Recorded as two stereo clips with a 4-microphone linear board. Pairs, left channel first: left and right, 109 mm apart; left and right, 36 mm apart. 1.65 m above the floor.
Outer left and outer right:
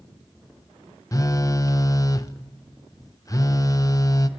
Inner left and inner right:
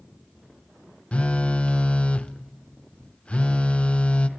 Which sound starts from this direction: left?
A phone buzzing, at 1.1 s.